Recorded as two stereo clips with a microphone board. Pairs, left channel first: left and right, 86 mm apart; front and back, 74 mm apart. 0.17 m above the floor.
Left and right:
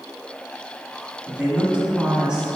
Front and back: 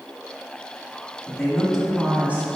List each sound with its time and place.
1.3 s a woman speaking: 45° right, 1.5 m; by 2.5 s 155° right, 1.6 m